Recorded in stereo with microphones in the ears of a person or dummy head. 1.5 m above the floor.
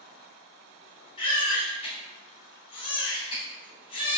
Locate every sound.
1.2 s a baby crying: 25° left (ahead or behind), 3 m